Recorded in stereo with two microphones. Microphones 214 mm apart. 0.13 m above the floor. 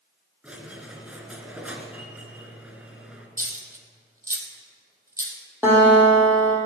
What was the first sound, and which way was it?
A squeak, 5° right (ahead or behind).